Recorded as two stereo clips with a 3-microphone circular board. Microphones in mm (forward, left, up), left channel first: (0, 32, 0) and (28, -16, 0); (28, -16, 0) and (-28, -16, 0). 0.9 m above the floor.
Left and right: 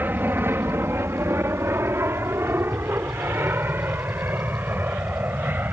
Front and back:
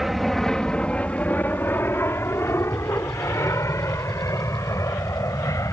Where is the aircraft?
95° right; by 5.7 s 5° right.